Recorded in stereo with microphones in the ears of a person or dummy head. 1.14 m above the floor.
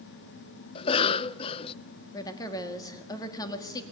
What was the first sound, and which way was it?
A cough, 25° left (ahead or behind).